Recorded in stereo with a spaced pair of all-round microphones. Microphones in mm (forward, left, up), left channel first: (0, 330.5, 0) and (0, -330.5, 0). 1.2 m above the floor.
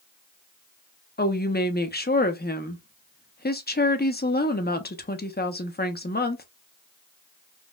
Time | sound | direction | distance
1.2 | a woman speaking | 15° left (ahead or behind) | 0.5 m